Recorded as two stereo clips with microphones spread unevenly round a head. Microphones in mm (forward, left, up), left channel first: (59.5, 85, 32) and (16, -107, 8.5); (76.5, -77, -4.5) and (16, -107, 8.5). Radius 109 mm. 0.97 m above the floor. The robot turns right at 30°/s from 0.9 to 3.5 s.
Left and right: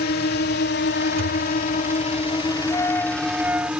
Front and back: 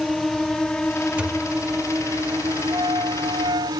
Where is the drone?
115° left; by 3.8 s 170° left.